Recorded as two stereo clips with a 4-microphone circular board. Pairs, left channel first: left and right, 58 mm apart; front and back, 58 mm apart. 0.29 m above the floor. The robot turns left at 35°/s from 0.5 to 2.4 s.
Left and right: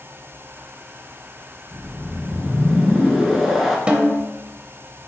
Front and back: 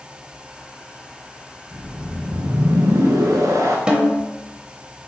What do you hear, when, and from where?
1.7 s a whoosh: 150° right, 0.8 m; by 3.8 s 175° right, 0.8 m
3.9 s a snare drum: 130° right, 0.6 m